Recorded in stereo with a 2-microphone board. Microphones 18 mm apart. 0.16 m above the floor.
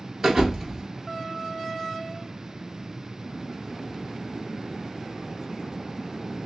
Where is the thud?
30° right (ahead or behind), 0.9 m.